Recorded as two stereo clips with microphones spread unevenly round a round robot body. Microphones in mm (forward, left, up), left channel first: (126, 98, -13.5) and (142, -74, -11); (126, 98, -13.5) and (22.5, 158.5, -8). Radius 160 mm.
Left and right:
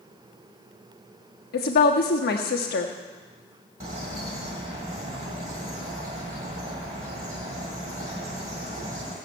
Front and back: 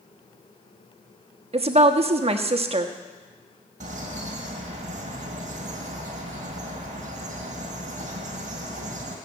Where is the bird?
155° right, 1.6 m.